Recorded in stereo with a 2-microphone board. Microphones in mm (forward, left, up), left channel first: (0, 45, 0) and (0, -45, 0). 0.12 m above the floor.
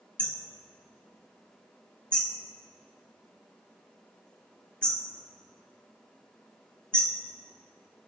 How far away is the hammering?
About 2.5 m.